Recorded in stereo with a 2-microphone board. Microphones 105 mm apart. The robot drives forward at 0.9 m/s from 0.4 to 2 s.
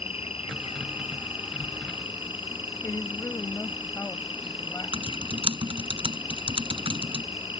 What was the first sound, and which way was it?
An insect, 75° left (ahead or behind).